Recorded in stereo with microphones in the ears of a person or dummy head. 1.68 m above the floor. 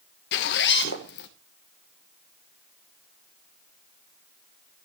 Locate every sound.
0.3 s a zipper: 60° left (ahead or behind), 1.2 m